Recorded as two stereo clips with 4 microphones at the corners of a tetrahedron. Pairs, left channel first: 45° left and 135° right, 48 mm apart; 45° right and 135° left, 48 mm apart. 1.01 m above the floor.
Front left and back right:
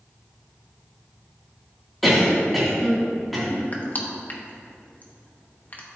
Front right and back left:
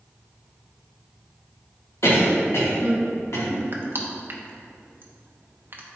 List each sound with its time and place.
2.0 s a cough: 45° right, 2.5 m
3.7 s crushing: 95° left, 0.9 m